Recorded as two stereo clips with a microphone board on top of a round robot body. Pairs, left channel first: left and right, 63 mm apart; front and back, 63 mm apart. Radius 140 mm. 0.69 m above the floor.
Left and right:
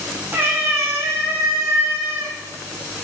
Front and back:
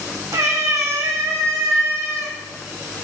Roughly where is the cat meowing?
Behind right.